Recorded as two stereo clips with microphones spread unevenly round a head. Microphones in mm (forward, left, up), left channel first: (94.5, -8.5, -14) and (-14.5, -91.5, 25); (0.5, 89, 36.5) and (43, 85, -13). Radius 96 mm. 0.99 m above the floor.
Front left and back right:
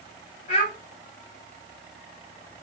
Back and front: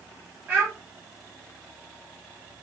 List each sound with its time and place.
0.5 s a child speaking: 5° left, 0.9 m